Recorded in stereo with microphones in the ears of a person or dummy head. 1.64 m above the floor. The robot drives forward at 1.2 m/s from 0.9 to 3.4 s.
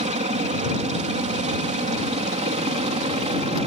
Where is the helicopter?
30° right (ahead or behind).